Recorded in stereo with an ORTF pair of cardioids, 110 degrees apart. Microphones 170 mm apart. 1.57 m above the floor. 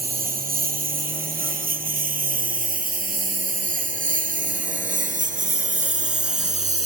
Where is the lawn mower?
60° right; by 6.9 s 45° right.